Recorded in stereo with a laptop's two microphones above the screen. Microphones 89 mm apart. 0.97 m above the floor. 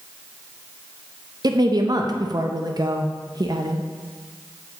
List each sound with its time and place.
1.4 s a woman speaking: 50° right (ahead or behind), 0.5 m